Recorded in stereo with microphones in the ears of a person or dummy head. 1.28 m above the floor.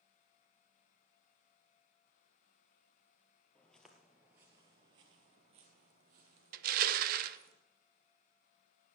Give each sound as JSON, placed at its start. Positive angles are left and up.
{"t": 3.5, "sound": "footsteps", "side_deg": 5, "distance_m": 1.5}
{"t": 6.5, "sound": "crushing", "side_deg": -50, "distance_m": 0.8}